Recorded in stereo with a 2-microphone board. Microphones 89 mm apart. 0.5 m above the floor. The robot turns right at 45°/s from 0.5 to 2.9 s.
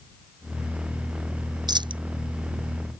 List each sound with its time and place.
1.7 s a dropped coin: 50° right (ahead or behind); by 2.0 s 65° right (ahead or behind)